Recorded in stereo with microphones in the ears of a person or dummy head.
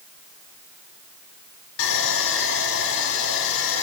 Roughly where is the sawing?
Left.